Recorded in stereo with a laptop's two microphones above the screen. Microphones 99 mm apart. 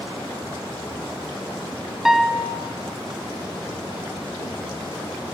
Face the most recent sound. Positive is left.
turn(degrees=-5)  # may be behind; listen again after turning